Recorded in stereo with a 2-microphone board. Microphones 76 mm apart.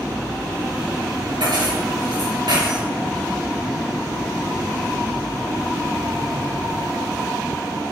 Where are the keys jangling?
80° right, 5 m.